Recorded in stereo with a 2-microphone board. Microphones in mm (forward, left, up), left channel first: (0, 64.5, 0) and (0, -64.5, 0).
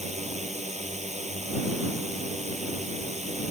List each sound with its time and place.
0.0 s a drone: 60° right (ahead or behind)